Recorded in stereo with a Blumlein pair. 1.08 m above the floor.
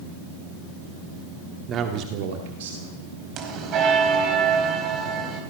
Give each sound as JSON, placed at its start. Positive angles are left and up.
{"t": 1.7, "sound": "a man speaking", "azimuth_deg": -25, "distance_m": 2.0}
{"t": 3.4, "sound": "a bell", "azimuth_deg": -35, "distance_m": 4.5}